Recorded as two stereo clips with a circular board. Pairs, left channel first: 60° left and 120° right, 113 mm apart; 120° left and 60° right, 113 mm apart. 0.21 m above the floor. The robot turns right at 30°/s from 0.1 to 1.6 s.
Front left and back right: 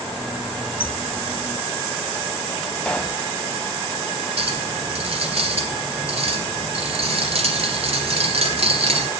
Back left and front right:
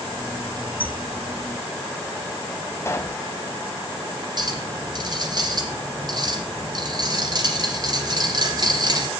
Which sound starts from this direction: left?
A squeak, at 0.8 s.